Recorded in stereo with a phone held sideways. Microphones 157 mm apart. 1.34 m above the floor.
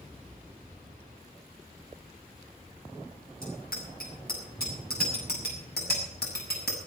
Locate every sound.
3.4 s a bicycle bell: 70° left (ahead or behind), 8 m; by 6.8 s 75° left (ahead or behind), 6.5 m